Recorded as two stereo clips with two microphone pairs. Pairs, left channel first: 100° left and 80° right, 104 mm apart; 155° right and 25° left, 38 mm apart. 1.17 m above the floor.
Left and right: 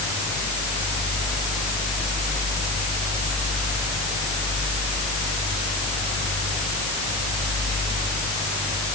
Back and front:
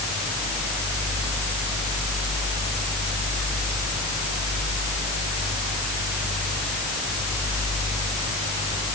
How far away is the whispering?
No whispering in this recording.